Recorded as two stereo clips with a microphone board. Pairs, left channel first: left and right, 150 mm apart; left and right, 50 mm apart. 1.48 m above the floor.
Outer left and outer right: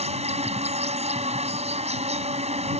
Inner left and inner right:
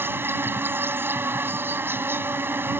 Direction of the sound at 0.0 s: 45° right (ahead or behind).